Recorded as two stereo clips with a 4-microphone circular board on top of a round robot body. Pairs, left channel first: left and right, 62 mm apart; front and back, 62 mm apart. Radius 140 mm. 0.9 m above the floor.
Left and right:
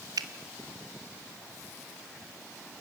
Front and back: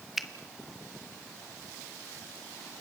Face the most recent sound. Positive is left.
turn(degrees=-95)